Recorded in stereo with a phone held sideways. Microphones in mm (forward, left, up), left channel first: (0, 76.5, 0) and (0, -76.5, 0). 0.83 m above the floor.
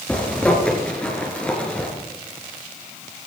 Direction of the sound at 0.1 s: 10° left (ahead or behind).